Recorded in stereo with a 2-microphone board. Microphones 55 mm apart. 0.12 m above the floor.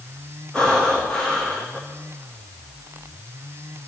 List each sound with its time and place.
0.5 s breathing: 15° left (ahead or behind), 5 m